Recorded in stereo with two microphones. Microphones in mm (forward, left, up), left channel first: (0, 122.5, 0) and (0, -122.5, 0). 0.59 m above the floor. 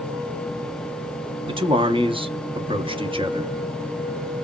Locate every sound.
1.5 s a man speaking: 20° right (ahead or behind), 0.6 m